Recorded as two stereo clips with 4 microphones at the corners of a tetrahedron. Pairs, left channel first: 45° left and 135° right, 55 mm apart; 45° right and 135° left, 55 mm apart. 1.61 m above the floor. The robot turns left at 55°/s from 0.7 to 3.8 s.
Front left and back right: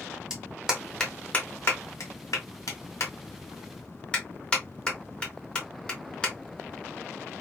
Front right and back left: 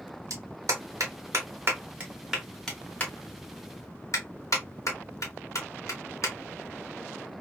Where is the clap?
145° left, 1.4 m; by 6.3 s 25° right, 1.4 m.